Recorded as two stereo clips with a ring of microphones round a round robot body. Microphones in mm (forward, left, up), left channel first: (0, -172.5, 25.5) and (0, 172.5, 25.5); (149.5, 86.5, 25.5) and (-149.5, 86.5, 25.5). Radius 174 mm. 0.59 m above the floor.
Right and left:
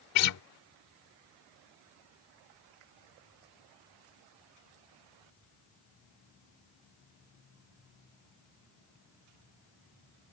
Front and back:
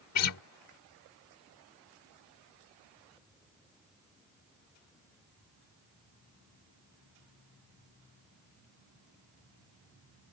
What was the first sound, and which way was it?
A guitar, 45° right.